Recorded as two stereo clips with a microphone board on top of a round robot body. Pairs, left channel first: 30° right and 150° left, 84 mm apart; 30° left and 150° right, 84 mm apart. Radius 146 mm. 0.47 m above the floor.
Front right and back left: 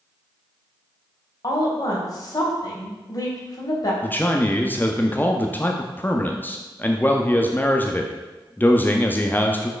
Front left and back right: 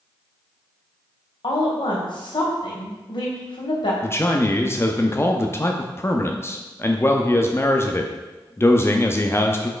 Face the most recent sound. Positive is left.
turn(degrees=15)